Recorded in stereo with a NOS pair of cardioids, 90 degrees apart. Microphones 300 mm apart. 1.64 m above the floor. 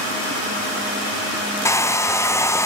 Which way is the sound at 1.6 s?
10° left.